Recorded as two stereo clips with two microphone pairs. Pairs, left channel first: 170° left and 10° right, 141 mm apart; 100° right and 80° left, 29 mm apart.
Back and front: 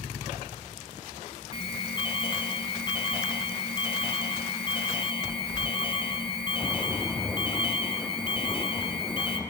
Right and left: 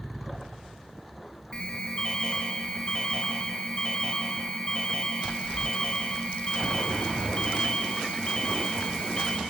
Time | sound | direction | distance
1.5 | an alarm | 150° right | 2.5 m